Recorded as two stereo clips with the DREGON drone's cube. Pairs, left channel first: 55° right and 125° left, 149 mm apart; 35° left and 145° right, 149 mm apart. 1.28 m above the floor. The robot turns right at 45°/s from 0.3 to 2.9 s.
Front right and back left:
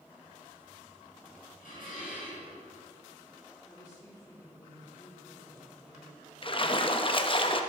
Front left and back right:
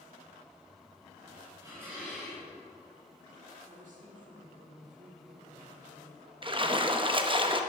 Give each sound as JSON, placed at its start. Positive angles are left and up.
{"t": 1.6, "sound": "dishes clattering", "azimuth_deg": -85, "distance_m": 5.5}
{"t": 3.6, "sound": "a woman speaking", "azimuth_deg": -120, "distance_m": 5.0}
{"t": 6.4, "sound": "a splash", "azimuth_deg": -100, "distance_m": 0.8}